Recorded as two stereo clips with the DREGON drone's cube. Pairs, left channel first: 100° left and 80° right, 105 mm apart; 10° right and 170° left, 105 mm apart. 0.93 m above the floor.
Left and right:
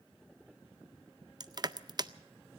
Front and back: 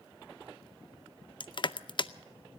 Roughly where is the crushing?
Ahead right.